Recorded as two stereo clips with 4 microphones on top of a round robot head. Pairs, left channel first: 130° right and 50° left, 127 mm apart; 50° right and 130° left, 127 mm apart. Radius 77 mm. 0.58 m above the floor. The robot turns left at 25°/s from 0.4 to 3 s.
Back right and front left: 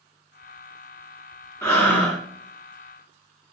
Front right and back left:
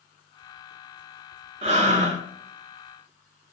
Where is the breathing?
160° left, 1.1 m; by 2.2 s 145° left, 1.1 m.